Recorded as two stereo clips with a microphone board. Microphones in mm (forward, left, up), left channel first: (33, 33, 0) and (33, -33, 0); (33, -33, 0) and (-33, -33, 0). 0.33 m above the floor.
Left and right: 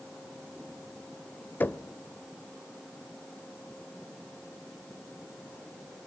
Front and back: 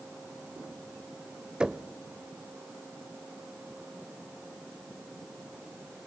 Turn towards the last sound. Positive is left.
turn(degrees=115)